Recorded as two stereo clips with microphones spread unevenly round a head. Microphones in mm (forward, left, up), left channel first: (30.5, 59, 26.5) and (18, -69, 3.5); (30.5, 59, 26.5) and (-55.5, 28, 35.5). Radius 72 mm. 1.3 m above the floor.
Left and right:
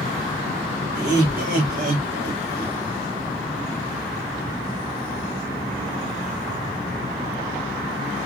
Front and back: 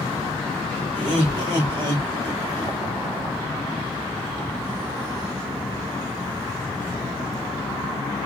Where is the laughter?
115° right, 3.5 m; by 2.8 s 100° right, 2.5 m.